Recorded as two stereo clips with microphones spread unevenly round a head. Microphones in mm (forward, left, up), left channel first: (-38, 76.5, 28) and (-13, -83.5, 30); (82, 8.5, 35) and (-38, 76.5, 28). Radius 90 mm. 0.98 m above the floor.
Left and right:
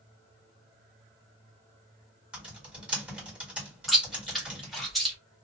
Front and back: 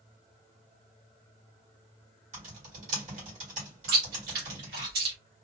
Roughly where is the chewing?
Behind.